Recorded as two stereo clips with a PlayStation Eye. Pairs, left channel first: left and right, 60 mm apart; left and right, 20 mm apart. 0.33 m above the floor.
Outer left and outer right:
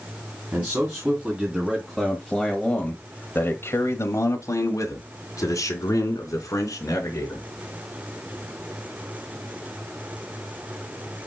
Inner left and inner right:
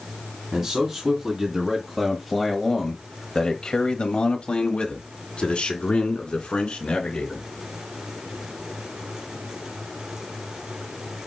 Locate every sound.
0.5 s a man speaking: 25° right (ahead or behind), 2.5 m; by 7.5 s 65° left (ahead or behind), 4 m